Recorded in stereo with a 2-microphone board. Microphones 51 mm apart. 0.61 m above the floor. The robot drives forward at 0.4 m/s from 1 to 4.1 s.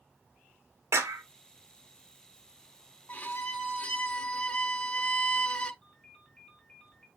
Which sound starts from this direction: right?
A clap, at 0.9 s.